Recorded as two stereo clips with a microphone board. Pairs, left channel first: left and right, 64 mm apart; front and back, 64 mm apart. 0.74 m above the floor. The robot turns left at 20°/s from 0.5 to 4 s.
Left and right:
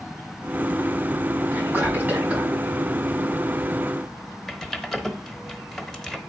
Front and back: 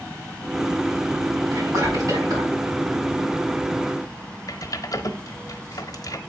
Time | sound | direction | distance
1.5 | whispering | 145° right | 5 m
4.5 | typing on a keyboard | 5° left | 0.8 m